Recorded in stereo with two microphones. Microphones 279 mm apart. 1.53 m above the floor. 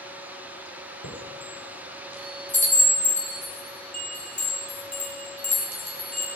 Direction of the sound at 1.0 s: 80° left.